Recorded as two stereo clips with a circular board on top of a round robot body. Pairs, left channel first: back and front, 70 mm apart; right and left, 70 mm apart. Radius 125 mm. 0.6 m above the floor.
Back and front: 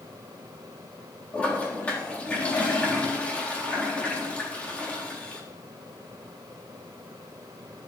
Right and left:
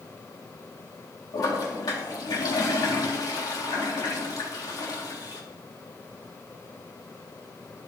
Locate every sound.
1.3 s a toilet flushing: 110° right, 3.5 m